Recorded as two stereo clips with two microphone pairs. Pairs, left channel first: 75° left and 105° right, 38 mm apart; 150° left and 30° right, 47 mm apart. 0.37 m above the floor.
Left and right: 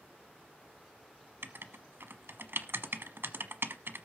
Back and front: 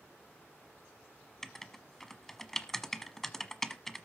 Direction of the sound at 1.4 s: 125° right.